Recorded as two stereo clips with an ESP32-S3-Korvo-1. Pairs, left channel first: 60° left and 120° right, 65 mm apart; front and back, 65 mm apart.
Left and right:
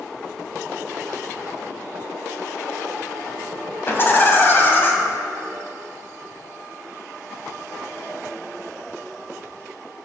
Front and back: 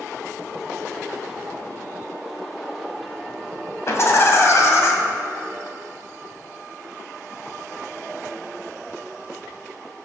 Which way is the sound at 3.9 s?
20° left.